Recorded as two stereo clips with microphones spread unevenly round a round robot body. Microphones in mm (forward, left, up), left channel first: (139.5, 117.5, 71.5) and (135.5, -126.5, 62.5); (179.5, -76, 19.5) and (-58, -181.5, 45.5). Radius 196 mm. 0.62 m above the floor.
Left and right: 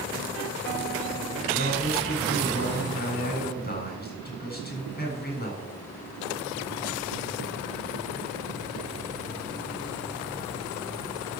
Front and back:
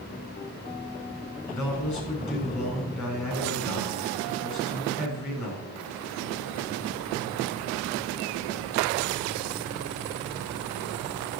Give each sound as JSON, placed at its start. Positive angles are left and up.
{"t": 1.5, "sound": "a man speaking", "azimuth_deg": 40, "distance_m": 8.0}